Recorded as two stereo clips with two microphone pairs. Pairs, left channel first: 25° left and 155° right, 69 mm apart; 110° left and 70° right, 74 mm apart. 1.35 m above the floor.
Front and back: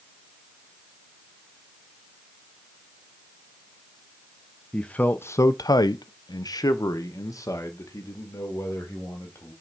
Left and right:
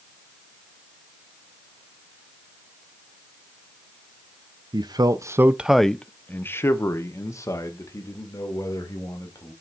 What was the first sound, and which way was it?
A man speaking, 50° right.